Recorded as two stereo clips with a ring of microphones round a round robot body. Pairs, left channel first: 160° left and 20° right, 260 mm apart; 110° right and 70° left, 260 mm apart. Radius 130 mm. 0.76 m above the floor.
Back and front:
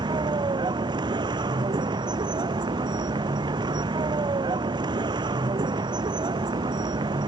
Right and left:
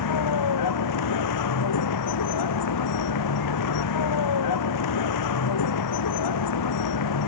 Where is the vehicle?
95° right.